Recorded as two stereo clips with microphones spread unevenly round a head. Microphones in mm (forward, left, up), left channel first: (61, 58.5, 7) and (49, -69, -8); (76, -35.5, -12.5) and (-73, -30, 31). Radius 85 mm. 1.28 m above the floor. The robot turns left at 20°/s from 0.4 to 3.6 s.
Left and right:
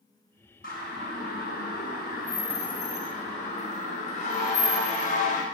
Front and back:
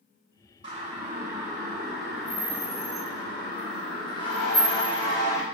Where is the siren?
115° left, 8.5 m; by 5.5 s 70° left, 4 m.